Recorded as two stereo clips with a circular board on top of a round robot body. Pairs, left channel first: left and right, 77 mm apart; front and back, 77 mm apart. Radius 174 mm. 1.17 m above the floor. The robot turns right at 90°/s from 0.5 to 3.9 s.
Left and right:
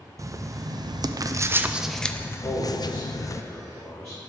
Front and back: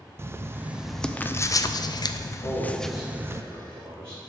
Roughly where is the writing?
Behind right.